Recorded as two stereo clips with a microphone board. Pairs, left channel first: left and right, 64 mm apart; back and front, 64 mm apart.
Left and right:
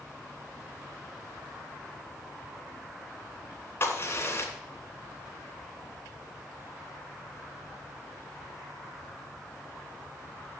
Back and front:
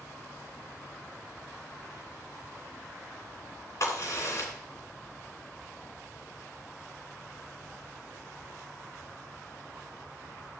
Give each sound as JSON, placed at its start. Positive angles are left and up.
{"t": 3.8, "sound": "a crack", "azimuth_deg": 145, "distance_m": 3.0}